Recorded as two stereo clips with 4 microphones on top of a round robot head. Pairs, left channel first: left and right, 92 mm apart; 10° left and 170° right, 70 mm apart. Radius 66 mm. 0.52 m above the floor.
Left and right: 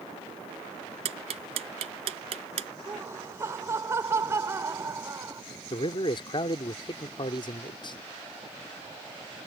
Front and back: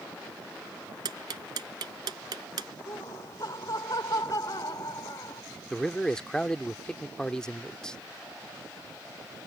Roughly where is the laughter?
Ahead right.